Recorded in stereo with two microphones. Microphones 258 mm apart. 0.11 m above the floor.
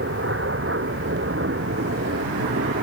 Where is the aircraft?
55° right (ahead or behind).